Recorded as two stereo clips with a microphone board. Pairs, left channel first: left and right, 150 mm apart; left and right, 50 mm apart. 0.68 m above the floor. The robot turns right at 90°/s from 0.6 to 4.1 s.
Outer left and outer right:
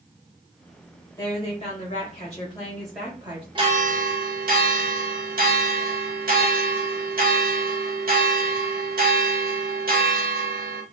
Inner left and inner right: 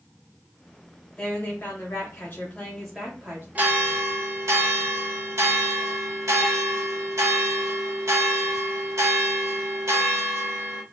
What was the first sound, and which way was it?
A woman speaking, 25° left.